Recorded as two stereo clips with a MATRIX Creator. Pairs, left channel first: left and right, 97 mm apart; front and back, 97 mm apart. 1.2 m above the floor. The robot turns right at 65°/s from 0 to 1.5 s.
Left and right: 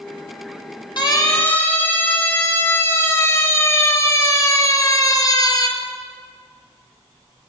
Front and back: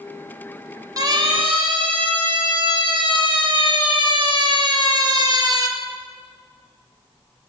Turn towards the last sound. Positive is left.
turn(degrees=135)